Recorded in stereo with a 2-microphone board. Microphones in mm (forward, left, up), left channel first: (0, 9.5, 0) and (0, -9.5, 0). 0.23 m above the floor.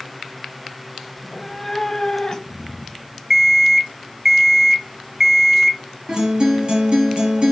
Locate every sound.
1.2 s a cat meowing: 10° right (ahead or behind), 0.7 m; by 3.2 s 45° left (ahead or behind), 1.2 m
3.3 s an alarm clock: 20° right (ahead or behind), 0.7 m
6.1 s a guitar: 65° right (ahead or behind), 3.5 m